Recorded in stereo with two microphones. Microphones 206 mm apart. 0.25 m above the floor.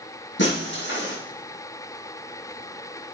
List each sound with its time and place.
0.4 s breaking glass: 65° left (ahead or behind), 8 m